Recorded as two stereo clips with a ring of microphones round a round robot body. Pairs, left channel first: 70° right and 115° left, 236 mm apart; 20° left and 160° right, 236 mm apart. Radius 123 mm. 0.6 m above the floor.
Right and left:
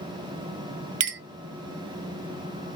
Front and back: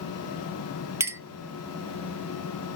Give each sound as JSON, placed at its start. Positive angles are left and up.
{"t": 1.0, "sound": "a clink", "azimuth_deg": 125, "distance_m": 0.6}